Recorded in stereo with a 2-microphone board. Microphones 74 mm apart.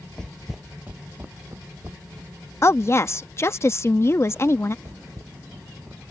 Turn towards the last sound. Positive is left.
turn(degrees=-25)  # may be behind; listen again after turning